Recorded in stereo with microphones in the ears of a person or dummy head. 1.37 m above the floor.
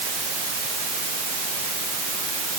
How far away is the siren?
No siren in this recording.